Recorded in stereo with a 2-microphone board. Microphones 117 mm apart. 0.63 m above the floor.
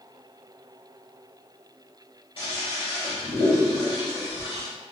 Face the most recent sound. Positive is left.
turn(degrees=55)  # may be behind; listen again after turning